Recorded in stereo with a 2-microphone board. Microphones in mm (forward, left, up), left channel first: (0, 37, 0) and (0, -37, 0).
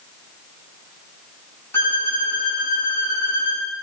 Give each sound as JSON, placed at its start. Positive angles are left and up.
{"t": 1.7, "sound": "a violin", "side_deg": 35, "distance_m": 2.0}